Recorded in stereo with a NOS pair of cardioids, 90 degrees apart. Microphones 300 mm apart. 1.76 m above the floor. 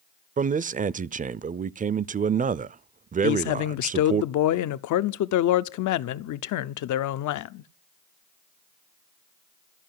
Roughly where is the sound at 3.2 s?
Left.